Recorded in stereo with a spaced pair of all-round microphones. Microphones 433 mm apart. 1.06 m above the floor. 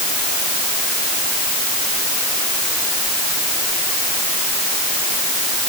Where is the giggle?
No giggle in this recording.